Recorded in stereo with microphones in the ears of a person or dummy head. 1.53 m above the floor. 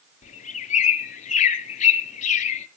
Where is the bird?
40° left (ahead or behind), 1.0 m.